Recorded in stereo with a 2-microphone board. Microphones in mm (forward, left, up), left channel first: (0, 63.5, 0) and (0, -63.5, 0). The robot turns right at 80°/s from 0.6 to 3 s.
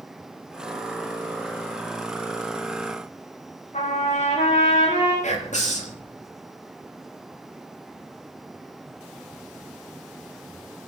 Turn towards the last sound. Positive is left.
turn(degrees=70)  # may be behind; listen again after turning